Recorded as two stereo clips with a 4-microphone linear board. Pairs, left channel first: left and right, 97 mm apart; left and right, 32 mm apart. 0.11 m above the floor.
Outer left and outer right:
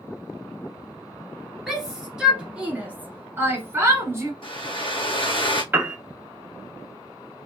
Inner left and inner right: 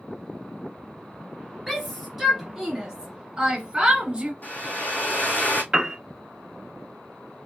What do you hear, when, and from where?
1.7 s a shout: centre (ahead or behind), 1.7 m; by 4.3 s 30° right (ahead or behind), 1.5 m
4.4 s a hair dryer: 65° left (ahead or behind), 1.6 m
5.7 s a piano: 20° right (ahead or behind), 0.8 m